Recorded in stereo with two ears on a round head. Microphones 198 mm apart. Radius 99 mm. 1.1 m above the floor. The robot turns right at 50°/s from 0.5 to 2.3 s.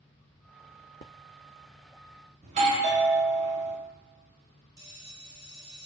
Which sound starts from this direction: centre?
A bell, at 4.8 s.